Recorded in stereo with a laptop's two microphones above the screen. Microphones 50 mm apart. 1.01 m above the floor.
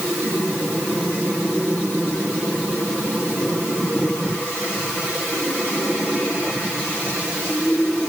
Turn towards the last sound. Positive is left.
No sound to turn to.